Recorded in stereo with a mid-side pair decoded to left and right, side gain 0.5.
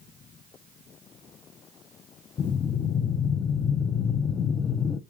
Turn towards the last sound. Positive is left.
turn(degrees=40)